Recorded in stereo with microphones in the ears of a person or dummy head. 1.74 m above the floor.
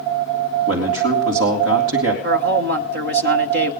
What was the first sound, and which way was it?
A man speaking, 65° right (ahead or behind).